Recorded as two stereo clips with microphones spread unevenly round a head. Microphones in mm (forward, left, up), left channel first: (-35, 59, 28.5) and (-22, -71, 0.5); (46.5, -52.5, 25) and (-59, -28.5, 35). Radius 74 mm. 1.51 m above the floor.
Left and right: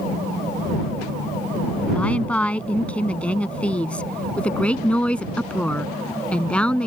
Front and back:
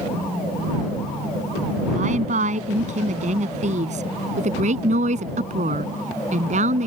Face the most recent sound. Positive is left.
turn(degrees=175)